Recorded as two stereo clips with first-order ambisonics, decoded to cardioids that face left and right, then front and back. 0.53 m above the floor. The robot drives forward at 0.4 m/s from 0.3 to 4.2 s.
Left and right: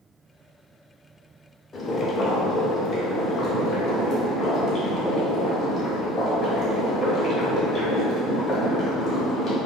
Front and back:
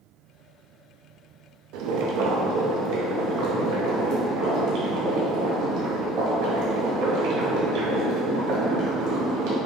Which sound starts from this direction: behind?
Boiling, at 1.7 s.